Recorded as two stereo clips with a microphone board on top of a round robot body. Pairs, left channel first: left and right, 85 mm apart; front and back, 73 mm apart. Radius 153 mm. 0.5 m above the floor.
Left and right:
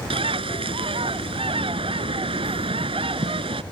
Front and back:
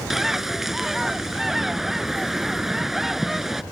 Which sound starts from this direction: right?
A bird, at 0.1 s.